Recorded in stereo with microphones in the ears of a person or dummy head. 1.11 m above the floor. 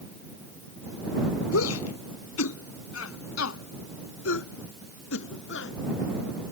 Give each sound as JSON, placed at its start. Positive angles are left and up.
{"t": 1.5, "sound": "a shout", "side_deg": 85}